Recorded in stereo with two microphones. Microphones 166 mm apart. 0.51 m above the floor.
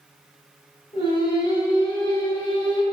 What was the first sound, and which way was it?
Singing, 30° left (ahead or behind).